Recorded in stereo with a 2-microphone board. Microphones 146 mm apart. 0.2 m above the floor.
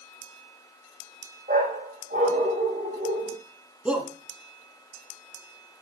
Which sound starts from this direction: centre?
A shout, at 3.9 s.